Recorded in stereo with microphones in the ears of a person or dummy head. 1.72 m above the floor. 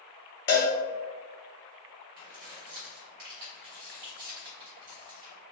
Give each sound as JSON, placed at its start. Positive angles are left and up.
{"t": 0.5, "sound": "a cowbell", "side_deg": 20, "distance_m": 0.6}
{"t": 2.2, "sound": "keys jangling", "side_deg": -50, "distance_m": 1.3}